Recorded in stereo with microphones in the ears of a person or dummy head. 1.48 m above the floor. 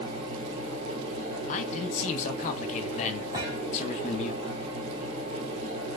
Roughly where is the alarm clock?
I don't hear an alarm clock.